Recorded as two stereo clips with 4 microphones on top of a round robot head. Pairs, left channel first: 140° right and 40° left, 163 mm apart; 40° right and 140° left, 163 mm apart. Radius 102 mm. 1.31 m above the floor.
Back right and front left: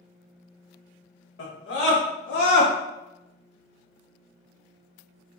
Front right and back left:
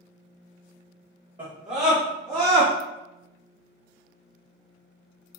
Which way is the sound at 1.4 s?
155° right.